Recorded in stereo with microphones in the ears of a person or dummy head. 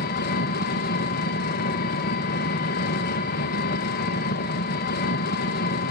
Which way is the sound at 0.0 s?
50° left (ahead or behind).